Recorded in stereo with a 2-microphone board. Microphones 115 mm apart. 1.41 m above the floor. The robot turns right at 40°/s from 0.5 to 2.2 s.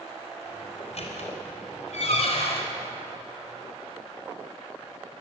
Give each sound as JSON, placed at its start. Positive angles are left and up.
{"t": 0.8, "sound": "a squeak", "side_deg": 60, "distance_m": 4.5}